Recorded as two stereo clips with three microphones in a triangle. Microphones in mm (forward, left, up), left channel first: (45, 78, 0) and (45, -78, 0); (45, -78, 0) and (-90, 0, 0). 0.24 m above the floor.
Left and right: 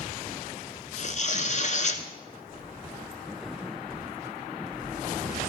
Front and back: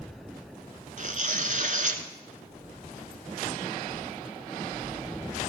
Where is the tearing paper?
120° left, 1.1 m.